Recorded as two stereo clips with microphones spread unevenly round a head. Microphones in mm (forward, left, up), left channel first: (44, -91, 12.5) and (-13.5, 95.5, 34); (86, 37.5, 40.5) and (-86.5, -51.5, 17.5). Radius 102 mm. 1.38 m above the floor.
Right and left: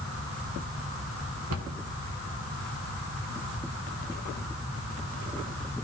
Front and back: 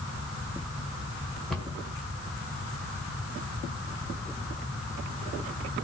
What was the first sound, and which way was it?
A cupboard door, 115° left.